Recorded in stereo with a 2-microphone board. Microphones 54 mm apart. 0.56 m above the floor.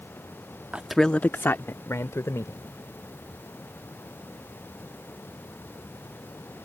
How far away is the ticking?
No ticking in this recording.